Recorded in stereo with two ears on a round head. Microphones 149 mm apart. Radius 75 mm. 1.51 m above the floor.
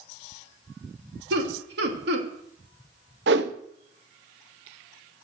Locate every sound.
1.3 s laughter: 70° right (ahead or behind), 3 m
3.3 s a whoosh: 70° right (ahead or behind), 0.9 m